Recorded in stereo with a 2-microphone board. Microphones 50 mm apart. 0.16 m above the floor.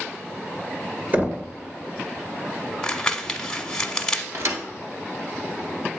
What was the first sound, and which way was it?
Knocking, 35° right (ahead or behind).